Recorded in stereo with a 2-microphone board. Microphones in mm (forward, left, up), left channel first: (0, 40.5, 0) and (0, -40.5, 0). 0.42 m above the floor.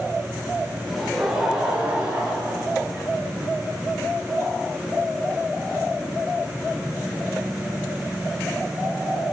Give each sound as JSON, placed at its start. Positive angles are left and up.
{"t": 0.9, "sound": "laughter", "side_deg": 10, "distance_m": 1.0}